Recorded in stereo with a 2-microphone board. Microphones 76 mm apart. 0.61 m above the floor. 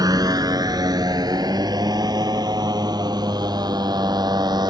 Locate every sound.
0.0 s a motorcycle: 55° right (ahead or behind); by 4.7 s 60° right (ahead or behind)